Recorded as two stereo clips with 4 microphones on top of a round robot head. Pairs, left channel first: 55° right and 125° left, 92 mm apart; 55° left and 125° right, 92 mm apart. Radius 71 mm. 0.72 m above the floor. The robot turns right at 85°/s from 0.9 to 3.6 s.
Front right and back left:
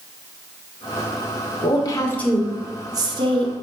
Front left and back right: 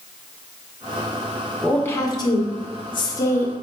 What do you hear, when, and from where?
1.6 s a woman speaking: 30° right, 1.6 m; by 3.5 s 135° left, 1.6 m